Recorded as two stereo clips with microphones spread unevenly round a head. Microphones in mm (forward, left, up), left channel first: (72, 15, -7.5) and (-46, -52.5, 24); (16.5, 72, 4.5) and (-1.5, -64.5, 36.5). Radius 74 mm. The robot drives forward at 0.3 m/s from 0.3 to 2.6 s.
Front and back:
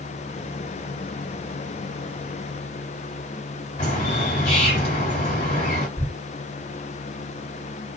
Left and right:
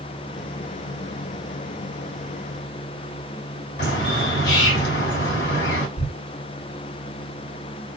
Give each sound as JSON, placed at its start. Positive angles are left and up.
{"t": 3.8, "sound": "a bird", "azimuth_deg": 85, "distance_m": 1.9}
{"t": 6.0, "sound": "a thud", "azimuth_deg": 135, "distance_m": 1.1}